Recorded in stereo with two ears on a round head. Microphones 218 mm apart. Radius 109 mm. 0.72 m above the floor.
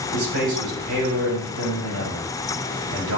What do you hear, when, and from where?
0.1 s a man speaking: 80° right, 4 m